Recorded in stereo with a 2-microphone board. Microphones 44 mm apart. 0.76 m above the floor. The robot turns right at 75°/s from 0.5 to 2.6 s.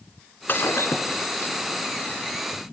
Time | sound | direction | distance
0.5 | breaking glass | 55° left | 2.5 m